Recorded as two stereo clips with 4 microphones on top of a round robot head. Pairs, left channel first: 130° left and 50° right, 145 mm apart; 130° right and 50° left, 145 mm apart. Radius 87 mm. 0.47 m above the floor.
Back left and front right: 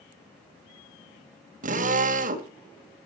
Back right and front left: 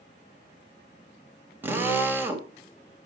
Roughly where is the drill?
Ahead right.